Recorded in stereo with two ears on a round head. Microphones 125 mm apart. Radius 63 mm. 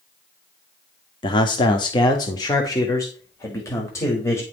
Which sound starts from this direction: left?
A man speaking, at 1.2 s.